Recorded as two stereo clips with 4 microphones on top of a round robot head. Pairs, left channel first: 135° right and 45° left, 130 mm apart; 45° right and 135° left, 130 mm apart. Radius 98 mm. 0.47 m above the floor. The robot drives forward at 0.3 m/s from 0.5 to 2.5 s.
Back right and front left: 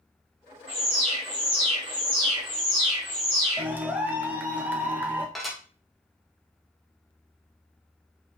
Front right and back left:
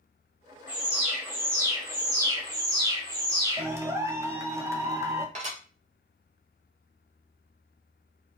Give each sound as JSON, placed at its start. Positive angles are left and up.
{"t": 0.7, "sound": "an alarm", "azimuth_deg": 60, "distance_m": 1.5}
{"t": 3.6, "sound": "a clap", "azimuth_deg": 100, "distance_m": 0.7}
{"t": 5.3, "sound": "dishes clattering", "azimuth_deg": 135, "distance_m": 0.8}